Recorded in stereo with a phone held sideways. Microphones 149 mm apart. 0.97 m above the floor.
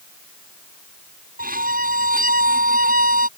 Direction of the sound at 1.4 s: 75° right (ahead or behind).